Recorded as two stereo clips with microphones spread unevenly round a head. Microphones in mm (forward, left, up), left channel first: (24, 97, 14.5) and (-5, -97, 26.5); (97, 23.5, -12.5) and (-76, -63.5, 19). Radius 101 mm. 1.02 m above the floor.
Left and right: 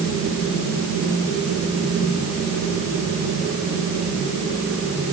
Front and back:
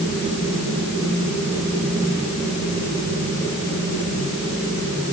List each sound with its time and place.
Only background noise.